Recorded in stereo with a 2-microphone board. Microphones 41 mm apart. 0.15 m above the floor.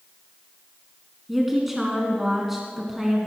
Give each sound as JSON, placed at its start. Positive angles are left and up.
{"t": 1.3, "sound": "a woman speaking", "side_deg": -5, "distance_m": 1.7}